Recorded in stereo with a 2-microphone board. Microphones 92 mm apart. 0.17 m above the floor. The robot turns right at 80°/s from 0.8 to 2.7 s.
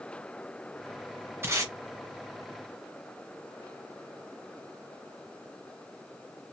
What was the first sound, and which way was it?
Tape being pulled, 25° right (ahead or behind).